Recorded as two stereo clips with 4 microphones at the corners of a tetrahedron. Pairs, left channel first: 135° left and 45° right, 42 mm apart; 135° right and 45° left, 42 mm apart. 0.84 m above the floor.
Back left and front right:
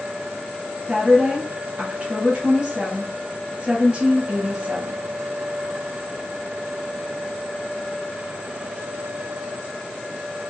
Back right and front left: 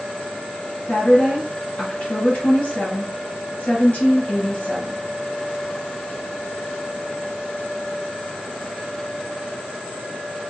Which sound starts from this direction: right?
A woman speaking, at 0.9 s.